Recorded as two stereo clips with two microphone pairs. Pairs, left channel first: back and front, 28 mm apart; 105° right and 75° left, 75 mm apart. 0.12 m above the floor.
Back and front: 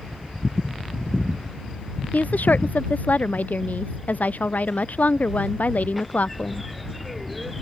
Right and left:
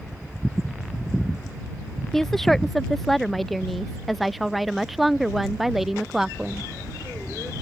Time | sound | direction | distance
2.1 | a woman speaking | 170° left | ?